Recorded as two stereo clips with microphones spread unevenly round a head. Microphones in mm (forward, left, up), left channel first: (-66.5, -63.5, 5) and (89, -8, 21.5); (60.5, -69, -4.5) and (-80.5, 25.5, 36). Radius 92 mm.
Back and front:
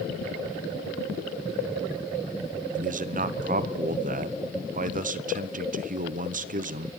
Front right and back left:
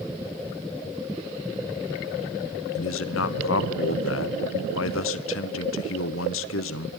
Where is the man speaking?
20° right, 1.2 m.